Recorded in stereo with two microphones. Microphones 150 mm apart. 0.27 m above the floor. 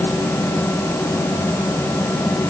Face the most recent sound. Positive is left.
No sound to turn to.